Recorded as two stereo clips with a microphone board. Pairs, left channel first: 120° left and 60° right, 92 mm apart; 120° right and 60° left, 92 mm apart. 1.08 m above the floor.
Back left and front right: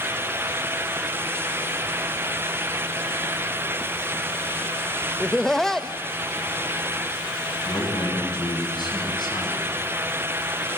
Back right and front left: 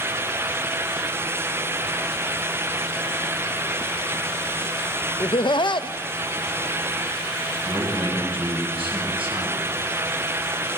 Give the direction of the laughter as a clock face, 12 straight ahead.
5 o'clock.